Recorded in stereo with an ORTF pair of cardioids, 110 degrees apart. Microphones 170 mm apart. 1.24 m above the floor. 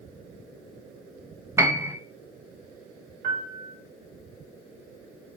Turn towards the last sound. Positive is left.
turn(degrees=-65)